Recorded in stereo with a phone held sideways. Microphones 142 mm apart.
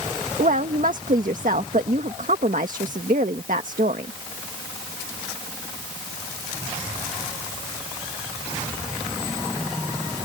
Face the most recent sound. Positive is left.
turn(degrees=-70)  # may be behind; listen again after turning